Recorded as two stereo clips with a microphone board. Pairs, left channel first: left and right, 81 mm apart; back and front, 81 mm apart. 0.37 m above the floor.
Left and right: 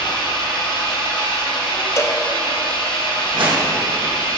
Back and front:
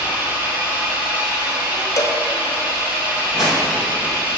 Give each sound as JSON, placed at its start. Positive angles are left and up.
{"t": 0.0, "sound": "an engine running", "azimuth_deg": 75, "distance_m": 2.5}
{"t": 2.0, "sound": "a cowbell", "azimuth_deg": 140, "distance_m": 0.7}
{"t": 3.3, "sound": "a whoosh", "azimuth_deg": -85, "distance_m": 2.5}